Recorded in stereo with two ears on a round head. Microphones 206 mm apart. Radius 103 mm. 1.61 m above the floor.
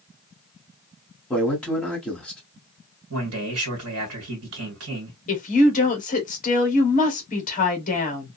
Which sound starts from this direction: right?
A man speaking, at 3.1 s.